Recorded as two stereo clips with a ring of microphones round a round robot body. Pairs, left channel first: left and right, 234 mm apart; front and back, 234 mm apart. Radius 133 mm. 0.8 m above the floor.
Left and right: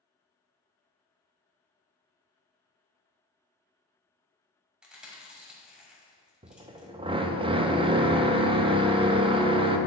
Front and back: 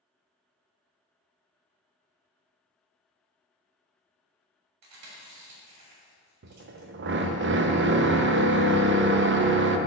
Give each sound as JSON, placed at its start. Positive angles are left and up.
{"t": 4.8, "sound": "chewing", "azimuth_deg": -175, "distance_m": 1.9}
{"t": 6.4, "sound": "a drill", "azimuth_deg": -155, "distance_m": 0.6}